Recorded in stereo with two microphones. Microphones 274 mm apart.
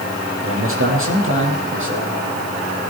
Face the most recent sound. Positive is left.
turn(degrees=-45)  # may be behind; listen again after turning